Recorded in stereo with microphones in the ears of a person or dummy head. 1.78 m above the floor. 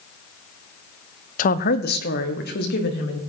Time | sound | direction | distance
1.4 | a woman speaking | 45° left (ahead or behind) | 0.6 m